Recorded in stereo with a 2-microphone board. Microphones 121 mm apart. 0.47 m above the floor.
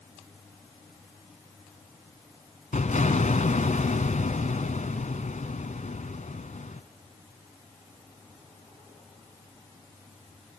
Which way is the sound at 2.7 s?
85° left.